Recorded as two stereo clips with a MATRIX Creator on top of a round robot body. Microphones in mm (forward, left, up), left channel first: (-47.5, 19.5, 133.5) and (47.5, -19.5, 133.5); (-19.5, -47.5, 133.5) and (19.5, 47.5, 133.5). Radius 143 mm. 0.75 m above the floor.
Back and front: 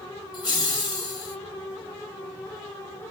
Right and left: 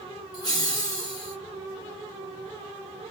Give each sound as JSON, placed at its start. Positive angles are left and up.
{"t": 0.3, "sound": "laughter", "azimuth_deg": -160, "distance_m": 1.5}